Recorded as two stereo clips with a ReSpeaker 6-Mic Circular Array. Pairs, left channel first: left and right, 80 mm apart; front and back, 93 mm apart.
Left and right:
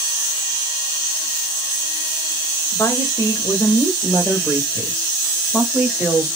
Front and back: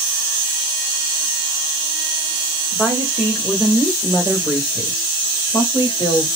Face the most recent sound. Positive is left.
turn(degrees=0)